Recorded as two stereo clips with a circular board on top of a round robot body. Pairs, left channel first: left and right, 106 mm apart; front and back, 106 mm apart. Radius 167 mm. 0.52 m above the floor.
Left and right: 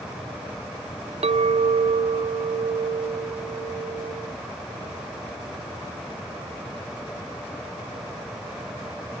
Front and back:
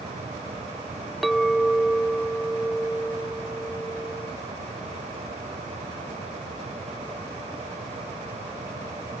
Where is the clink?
90° right.